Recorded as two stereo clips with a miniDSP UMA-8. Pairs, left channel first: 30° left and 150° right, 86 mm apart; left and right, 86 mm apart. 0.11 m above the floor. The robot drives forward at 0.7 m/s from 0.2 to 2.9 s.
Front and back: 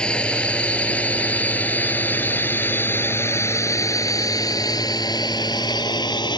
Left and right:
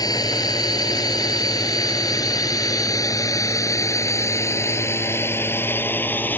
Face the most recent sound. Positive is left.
turn(degrees=25)